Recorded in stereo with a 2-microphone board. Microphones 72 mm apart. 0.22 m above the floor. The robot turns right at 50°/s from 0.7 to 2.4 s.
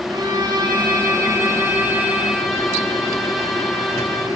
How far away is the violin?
About 10 m.